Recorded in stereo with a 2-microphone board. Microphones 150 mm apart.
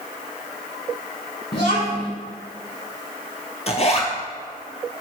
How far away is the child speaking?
About 1.0 m.